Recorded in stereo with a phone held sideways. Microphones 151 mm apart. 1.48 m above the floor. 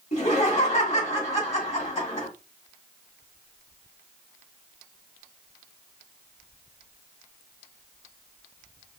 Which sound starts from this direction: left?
Laughter, at 0.1 s.